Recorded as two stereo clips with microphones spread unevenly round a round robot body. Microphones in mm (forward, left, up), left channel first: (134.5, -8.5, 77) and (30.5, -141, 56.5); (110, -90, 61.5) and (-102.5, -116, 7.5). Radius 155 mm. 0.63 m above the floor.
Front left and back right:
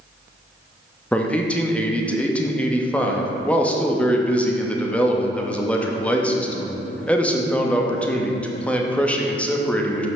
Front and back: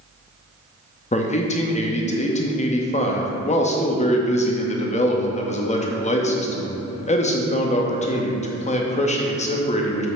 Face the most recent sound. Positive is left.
turn(degrees=-40)